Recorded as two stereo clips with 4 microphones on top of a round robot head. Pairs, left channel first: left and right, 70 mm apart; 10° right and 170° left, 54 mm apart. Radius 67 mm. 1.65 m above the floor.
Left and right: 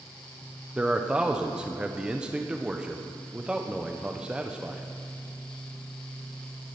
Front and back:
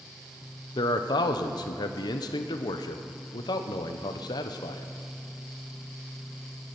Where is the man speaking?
10° right, 0.9 m.